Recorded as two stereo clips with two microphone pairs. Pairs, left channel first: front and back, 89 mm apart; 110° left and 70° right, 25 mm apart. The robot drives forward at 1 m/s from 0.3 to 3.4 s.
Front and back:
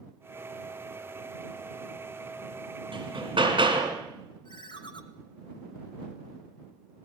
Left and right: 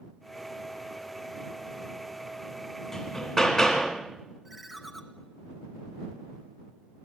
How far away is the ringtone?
About 1.3 m.